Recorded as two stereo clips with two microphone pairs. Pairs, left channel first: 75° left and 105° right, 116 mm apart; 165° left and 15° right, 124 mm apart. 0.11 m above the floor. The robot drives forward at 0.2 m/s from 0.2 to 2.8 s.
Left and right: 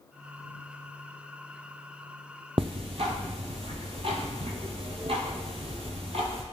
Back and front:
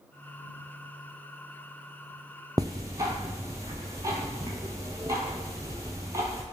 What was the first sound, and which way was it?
Ticking, 70° right.